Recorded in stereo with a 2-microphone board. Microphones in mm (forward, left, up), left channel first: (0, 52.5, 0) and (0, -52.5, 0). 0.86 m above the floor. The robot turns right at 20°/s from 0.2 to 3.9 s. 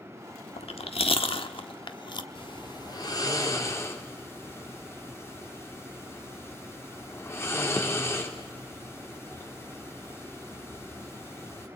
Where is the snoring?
55° left (ahead or behind), 3 m; by 11.7 s 25° left (ahead or behind), 3 m.